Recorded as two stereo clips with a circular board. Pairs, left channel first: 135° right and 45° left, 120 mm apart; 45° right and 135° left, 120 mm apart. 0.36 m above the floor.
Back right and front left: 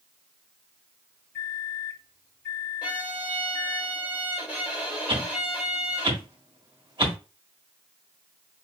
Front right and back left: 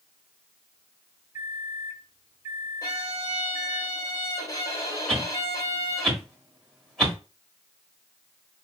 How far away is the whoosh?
About 1.4 m.